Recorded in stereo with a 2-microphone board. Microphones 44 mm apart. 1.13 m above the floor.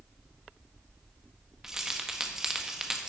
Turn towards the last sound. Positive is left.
turn(degrees=-15)  # may be behind; listen again after turning